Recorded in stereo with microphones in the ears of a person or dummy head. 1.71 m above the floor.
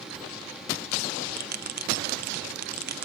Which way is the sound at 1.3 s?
55° right (ahead or behind).